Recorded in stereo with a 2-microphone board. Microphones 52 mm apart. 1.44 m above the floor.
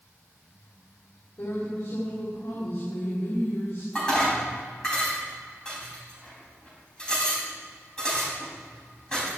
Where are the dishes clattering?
15° left (ahead or behind), 6 m.